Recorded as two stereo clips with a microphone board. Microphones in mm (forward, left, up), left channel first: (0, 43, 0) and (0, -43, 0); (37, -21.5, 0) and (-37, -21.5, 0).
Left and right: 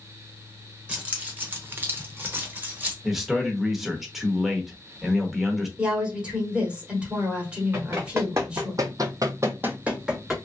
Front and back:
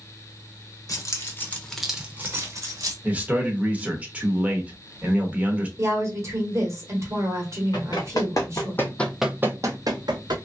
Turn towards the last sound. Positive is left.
turn(degrees=-175)